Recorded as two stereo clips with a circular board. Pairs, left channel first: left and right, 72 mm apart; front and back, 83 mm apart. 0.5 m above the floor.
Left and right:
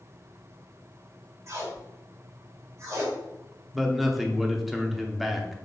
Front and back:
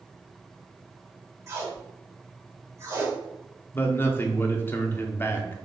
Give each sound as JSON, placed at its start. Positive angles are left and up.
{"t": 1.5, "sound": "tape being pulled", "azimuth_deg": -130, "distance_m": 1.5}
{"t": 3.7, "sound": "a man speaking", "azimuth_deg": -5, "distance_m": 0.7}